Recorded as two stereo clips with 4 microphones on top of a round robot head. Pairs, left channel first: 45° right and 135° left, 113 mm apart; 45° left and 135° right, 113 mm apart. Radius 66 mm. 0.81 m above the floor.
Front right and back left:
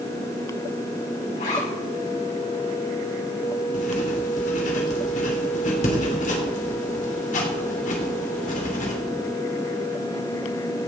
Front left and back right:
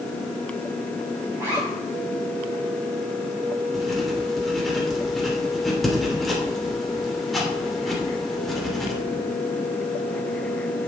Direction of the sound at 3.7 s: 40° right.